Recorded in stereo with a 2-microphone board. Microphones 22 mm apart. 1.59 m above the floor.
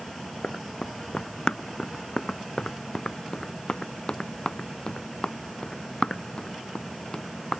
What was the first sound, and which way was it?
Running footsteps, 50° left (ahead or behind).